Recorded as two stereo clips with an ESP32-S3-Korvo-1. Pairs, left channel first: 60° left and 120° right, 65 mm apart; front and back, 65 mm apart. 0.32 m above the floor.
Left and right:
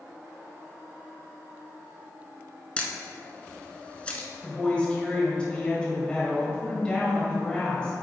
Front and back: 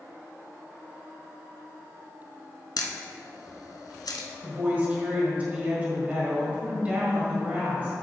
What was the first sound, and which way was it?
A camera shutter, 10° right.